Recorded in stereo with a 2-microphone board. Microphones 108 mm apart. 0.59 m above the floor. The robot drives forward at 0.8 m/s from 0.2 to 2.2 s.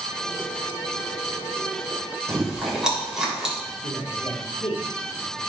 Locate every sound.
2.3 s chewing: 5° right (ahead or behind), 3 m
3.6 s a man speaking: 75° left (ahead or behind), 5 m